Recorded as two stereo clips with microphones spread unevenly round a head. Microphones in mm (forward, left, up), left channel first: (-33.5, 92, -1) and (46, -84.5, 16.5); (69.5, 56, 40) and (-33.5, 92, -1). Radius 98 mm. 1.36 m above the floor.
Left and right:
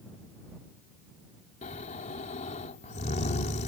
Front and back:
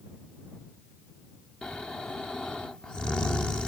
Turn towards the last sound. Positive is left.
turn(degrees=55)